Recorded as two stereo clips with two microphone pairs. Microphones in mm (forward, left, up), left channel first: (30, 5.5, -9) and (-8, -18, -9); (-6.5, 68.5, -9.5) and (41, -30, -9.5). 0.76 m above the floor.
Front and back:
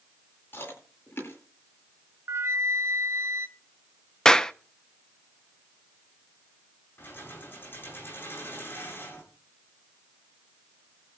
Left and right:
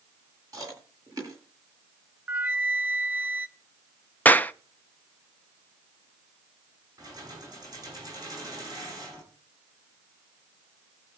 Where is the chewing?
5° right, 9.5 m.